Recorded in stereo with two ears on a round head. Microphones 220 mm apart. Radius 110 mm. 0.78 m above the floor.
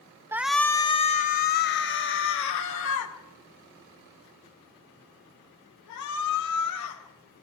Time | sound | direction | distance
0.3 | a shout | 10° right (ahead or behind) | 0.6 m